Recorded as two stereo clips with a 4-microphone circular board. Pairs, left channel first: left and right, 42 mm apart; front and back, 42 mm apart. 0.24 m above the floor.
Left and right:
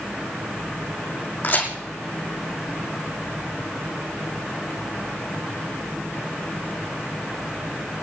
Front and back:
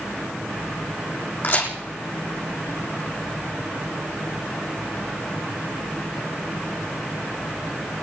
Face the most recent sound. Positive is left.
turn(degrees=45)